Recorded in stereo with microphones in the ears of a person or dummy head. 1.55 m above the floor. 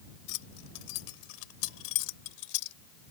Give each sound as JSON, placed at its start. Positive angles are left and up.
{"t": 0.3, "sound": "keys jangling", "side_deg": 80}